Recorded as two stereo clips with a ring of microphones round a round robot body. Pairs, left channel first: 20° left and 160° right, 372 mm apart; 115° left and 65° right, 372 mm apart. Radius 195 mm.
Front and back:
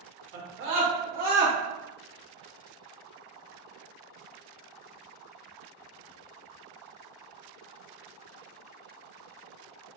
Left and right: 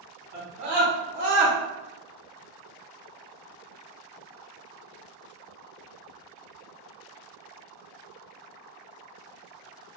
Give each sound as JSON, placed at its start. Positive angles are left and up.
{"t": 0.3, "sound": "a scream", "azimuth_deg": -120, "distance_m": 1.8}